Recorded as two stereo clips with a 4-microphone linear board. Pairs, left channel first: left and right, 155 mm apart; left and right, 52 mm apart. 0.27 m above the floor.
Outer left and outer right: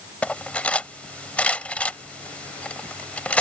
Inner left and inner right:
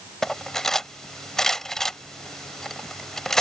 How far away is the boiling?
No boiling in this recording.